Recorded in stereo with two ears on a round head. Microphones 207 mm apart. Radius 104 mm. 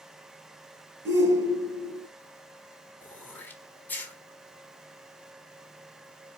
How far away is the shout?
About 4 m.